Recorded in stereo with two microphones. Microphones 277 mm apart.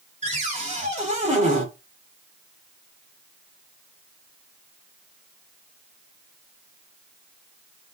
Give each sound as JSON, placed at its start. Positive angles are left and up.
{"t": 0.2, "sound": "a cupboard door", "side_deg": -25, "distance_m": 2.0}